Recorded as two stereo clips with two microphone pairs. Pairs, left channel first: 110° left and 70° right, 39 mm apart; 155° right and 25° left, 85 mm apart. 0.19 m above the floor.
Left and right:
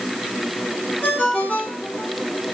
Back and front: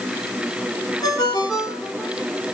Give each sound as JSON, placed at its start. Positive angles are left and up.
{"t": 1.0, "sound": "a ringtone", "azimuth_deg": 160, "distance_m": 4.0}